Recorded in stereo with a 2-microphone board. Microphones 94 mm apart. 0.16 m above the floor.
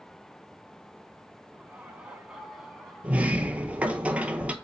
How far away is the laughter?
About 1.5 m.